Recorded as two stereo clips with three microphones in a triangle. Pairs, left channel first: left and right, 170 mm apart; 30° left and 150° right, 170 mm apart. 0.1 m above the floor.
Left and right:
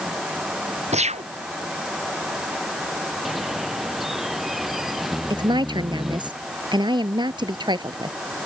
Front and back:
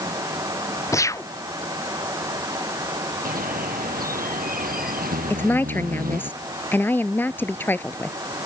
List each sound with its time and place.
0.9 s a gunshot: 40° right
3.2 s a bird: straight behind
5.3 s a woman speaking: 45° right